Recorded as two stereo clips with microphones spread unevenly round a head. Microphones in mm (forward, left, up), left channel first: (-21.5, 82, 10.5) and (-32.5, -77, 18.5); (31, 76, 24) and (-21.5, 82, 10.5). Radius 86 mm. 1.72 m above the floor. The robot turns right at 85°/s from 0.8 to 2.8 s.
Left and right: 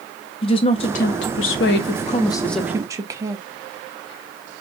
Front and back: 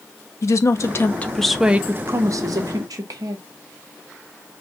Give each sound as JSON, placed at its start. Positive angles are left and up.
{"t": 0.4, "sound": "a woman speaking", "azimuth_deg": 25, "distance_m": 0.8}